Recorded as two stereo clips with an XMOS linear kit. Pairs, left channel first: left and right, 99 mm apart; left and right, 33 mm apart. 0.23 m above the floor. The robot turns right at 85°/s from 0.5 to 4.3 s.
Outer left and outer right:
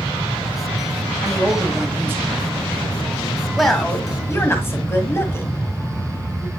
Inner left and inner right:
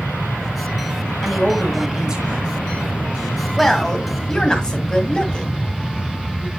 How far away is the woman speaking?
About 1.5 m.